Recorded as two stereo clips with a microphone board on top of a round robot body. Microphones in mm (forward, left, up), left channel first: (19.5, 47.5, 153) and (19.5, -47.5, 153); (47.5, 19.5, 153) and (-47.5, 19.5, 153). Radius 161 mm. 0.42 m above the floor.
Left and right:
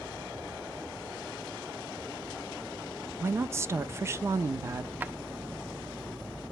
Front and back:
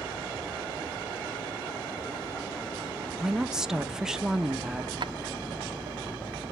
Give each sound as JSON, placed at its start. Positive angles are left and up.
{"t": 3.2, "sound": "a woman speaking", "azimuth_deg": -105, "distance_m": 0.8}
{"t": 5.0, "sound": "a drawer", "azimuth_deg": -160, "distance_m": 0.5}